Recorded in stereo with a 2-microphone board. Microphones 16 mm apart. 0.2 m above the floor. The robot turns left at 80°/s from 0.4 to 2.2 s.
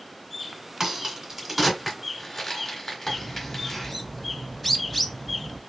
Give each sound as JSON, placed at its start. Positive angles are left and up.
{"t": 0.8, "sound": "a crack", "side_deg": -35, "distance_m": 1.8}
{"t": 3.1, "sound": "a bird", "side_deg": 5, "distance_m": 0.6}